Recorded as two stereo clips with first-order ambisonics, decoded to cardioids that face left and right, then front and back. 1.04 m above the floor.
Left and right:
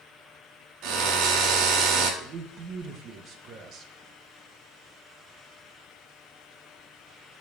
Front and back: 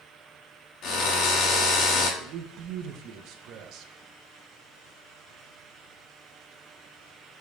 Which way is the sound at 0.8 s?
50° right.